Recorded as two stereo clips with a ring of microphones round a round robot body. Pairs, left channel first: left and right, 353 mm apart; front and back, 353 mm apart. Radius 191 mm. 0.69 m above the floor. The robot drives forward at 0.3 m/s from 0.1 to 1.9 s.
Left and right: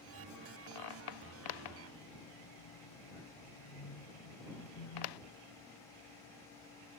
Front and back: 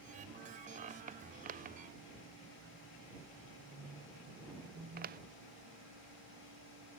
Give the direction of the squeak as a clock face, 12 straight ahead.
8 o'clock.